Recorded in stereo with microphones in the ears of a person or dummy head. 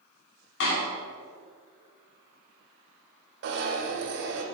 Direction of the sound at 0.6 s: 65° left (ahead or behind).